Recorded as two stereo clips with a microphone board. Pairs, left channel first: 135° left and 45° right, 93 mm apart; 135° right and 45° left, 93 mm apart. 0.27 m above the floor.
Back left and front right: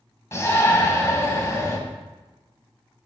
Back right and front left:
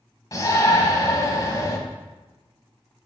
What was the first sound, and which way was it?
A shout, 175° right.